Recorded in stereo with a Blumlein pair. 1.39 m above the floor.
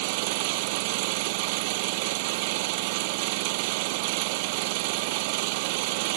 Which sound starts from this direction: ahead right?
An engine running, at 0.0 s.